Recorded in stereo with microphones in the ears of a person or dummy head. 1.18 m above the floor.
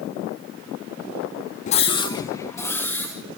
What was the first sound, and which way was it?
A scream, 30° left (ahead or behind).